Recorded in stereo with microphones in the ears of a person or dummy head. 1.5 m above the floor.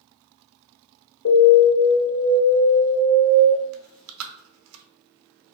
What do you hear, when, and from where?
1.2 s an alarm: 65° left (ahead or behind), 1.2 m
3.7 s chewing: 80° right, 0.5 m